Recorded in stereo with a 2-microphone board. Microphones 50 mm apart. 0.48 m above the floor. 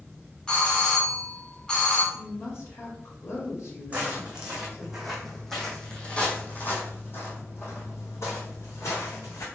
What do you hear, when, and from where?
0.5 s a doorbell: 15° left (ahead or behind), 1.5 m
2.1 s a woman speaking: 60° left (ahead or behind), 1.7 m
3.9 s footsteps: 20° right (ahead or behind), 1.8 m; by 9.4 s 75° left (ahead or behind), 2.5 m